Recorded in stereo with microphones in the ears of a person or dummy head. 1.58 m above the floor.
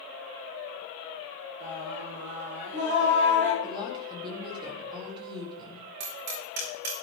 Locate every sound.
1.6 s singing: 65° right (ahead or behind), 5.5 m
3.6 s a woman speaking: 30° right (ahead or behind), 3.5 m
6.0 s hammering: 55° right (ahead or behind), 4.5 m